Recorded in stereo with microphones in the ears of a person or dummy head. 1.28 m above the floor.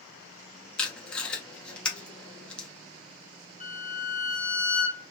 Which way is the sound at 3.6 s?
30° right (ahead or behind).